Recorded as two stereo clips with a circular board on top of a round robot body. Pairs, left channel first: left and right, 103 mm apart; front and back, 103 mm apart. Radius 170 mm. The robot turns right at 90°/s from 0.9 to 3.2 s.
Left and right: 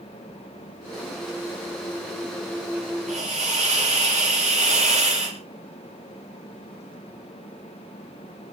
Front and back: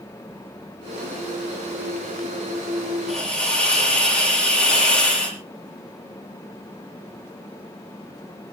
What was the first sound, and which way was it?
A hiss, 95° right.